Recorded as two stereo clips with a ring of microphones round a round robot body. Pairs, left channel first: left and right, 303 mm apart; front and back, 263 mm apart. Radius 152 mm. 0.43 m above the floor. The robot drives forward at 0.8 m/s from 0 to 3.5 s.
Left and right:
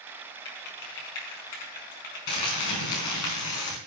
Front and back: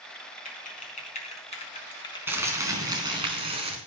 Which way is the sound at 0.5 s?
60° left.